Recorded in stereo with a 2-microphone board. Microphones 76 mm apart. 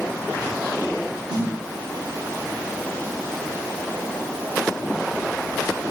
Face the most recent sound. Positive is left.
turn(degrees=-10)  # may be behind; listen again after turning